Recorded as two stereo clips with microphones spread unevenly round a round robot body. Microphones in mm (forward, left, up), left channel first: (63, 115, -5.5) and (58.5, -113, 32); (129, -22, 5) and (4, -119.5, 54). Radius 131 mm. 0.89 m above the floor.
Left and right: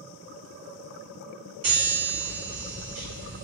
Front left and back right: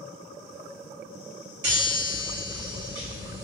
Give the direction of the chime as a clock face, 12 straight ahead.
4 o'clock.